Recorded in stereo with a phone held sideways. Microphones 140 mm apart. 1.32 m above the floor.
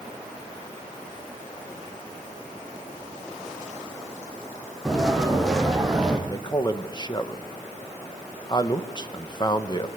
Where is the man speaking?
30° left (ahead or behind), 1.2 m.